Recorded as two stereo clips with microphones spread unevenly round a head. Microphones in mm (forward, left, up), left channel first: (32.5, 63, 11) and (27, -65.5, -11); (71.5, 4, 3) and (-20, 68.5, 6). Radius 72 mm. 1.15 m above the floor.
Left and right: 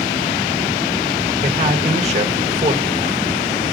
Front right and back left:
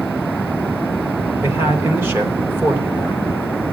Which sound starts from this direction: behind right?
A man speaking, at 1.4 s.